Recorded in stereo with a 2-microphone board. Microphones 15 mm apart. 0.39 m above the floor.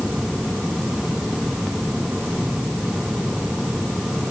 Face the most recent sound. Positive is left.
No sound to turn to.